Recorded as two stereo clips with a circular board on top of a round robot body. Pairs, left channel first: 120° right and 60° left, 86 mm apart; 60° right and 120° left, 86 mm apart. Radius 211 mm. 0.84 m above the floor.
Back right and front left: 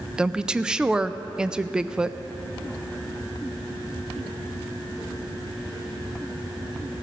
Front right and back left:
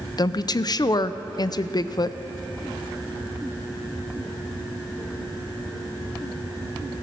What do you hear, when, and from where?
0.2 s a woman speaking: 20° right, 0.5 m